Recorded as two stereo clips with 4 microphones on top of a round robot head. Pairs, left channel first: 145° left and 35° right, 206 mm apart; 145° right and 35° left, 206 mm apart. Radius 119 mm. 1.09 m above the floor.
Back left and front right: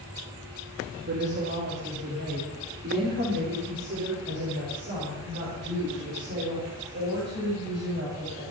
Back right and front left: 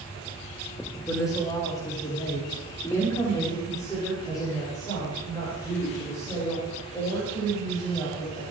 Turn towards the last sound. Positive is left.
turn(degrees=-70)